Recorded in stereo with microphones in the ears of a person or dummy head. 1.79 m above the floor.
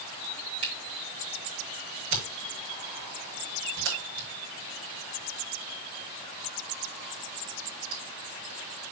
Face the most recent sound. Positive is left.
turn(degrees=-70)  # may be behind; listen again after turning